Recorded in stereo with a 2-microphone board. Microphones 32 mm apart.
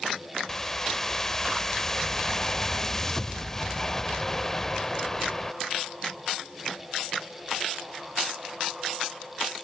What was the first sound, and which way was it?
A whoosh, 15° left (ahead or behind).